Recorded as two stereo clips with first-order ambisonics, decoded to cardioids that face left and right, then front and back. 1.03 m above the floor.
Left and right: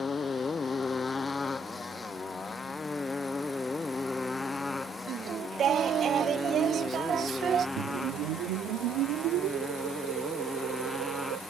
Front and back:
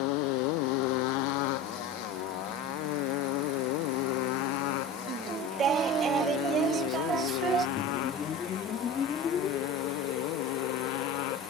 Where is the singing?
135° right.